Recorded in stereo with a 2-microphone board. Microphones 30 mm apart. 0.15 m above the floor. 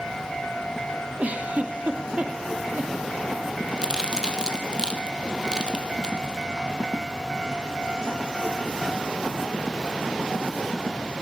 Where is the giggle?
50° right (ahead or behind), 2.5 m.